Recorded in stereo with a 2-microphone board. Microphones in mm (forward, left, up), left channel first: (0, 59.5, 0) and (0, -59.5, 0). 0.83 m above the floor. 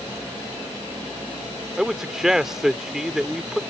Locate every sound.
1.8 s a man speaking: 5° right (ahead or behind)